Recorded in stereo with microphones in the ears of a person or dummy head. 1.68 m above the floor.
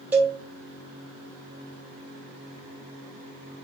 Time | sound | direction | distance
0.1 | a cowbell | 5° right (ahead or behind) | 1.2 m